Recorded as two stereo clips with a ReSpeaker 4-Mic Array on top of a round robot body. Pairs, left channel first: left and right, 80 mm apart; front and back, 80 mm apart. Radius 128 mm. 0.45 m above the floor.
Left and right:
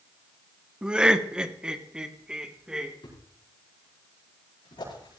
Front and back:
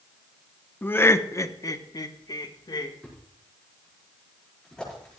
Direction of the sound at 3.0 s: 80° left.